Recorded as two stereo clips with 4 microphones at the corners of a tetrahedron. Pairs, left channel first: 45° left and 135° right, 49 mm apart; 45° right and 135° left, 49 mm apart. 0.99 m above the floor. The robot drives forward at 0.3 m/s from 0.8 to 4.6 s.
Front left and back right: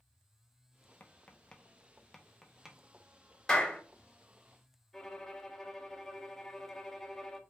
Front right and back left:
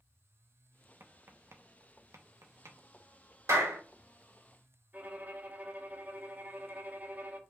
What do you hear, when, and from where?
1.0 s tapping: 100° left, 0.5 m; by 3.7 s 155° left, 1.0 m
3.5 s a clap: 125° left, 1.8 m
4.9 s a violin: 120° left, 0.7 m